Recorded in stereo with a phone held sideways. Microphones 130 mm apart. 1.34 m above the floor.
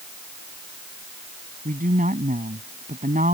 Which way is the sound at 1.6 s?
75° right (ahead or behind).